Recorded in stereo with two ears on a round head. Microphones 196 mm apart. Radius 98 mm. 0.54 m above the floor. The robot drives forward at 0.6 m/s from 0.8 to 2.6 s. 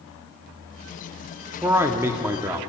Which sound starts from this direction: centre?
A man speaking, at 1.6 s.